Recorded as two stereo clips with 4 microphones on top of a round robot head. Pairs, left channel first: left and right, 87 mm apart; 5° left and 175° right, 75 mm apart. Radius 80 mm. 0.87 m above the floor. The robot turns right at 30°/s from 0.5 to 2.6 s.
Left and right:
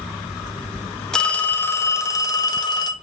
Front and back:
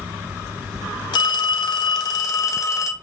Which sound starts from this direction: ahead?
A phone ringing, at 1.1 s.